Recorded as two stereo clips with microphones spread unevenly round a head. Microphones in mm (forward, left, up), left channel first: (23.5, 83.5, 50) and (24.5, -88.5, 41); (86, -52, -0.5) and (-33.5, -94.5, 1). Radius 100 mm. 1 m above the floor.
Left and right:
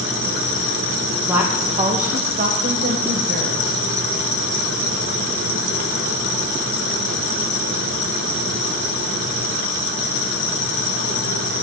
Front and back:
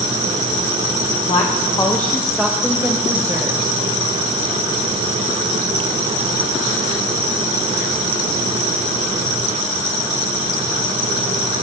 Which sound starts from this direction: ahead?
A woman speaking, at 1.3 s.